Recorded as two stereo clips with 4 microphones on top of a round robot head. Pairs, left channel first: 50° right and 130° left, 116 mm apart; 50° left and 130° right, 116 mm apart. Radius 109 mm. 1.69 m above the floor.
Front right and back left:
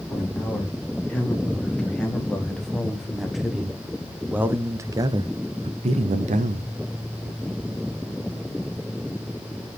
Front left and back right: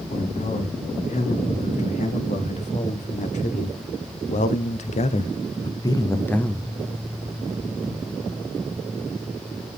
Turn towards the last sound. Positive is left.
turn(degrees=135)